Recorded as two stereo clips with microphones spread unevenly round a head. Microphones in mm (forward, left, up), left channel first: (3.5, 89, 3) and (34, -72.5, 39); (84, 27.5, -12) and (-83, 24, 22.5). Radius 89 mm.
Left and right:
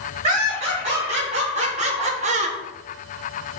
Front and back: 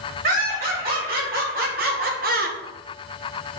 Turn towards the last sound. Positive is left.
turn(degrees=-135)